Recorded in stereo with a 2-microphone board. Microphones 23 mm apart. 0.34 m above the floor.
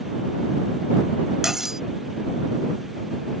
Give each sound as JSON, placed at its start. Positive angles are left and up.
{"t": 1.4, "sound": "cutlery clinking", "side_deg": -15}